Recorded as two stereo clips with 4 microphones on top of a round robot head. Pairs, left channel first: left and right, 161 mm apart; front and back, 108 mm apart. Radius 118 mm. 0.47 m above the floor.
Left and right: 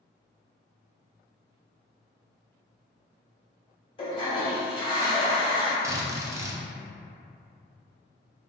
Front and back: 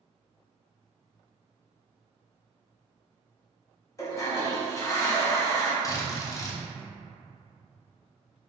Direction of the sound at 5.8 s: 30° right.